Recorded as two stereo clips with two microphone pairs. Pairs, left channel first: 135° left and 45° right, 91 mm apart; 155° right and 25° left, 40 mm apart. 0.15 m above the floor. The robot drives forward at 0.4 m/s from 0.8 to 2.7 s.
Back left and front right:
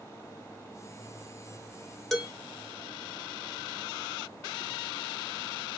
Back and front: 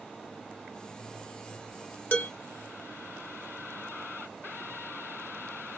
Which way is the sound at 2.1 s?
140° right.